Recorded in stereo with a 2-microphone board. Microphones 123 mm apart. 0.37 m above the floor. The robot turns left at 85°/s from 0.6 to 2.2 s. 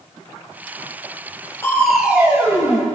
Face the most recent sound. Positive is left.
turn(degrees=-25)